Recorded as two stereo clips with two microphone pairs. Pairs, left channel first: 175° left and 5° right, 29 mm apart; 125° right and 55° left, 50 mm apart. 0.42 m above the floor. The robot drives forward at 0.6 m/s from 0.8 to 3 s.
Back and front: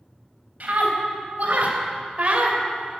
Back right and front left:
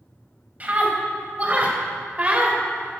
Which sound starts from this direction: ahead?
A scream, at 0.6 s.